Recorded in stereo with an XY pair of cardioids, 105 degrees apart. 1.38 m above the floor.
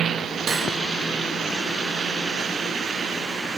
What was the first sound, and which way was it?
Cutlery clinking, 50° right.